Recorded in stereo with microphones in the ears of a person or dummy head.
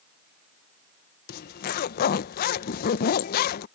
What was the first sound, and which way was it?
A zipper, 50° left (ahead or behind).